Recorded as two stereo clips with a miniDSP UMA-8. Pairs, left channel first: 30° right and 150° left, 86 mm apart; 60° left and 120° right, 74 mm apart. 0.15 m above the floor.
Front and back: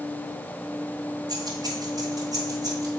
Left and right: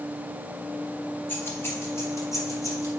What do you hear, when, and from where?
1.3 s keys jangling: 120° left, 1.7 m; by 2.9 s 105° left, 3 m